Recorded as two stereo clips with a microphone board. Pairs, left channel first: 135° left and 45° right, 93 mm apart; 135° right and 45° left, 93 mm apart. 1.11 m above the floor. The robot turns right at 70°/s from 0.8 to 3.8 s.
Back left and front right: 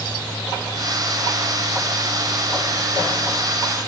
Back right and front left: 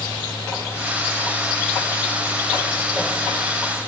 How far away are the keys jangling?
I don't hear keys jangling.